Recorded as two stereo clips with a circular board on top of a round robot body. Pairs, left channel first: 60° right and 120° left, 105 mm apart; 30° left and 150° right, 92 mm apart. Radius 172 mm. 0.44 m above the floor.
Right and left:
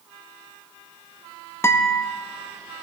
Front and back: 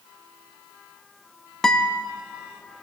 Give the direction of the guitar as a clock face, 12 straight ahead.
2 o'clock.